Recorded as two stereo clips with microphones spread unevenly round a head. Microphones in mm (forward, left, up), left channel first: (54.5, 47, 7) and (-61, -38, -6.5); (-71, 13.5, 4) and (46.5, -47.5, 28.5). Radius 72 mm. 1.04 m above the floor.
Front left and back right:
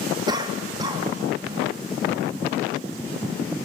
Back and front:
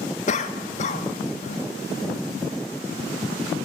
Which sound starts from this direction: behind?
A cough, at 0.3 s.